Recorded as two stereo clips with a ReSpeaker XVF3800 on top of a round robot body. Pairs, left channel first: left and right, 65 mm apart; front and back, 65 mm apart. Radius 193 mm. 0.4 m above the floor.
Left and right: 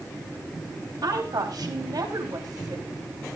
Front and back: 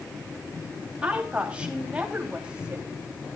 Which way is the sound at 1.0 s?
105° right.